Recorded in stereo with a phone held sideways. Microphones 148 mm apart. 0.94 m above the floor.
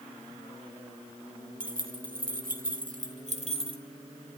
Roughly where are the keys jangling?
Right.